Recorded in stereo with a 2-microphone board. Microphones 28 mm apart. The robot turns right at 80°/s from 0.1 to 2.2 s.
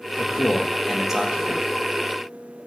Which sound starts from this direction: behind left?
A man speaking, at 0.2 s.